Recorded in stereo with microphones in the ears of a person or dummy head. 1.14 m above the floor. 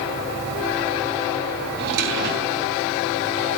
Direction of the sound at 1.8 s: 55° right (ahead or behind).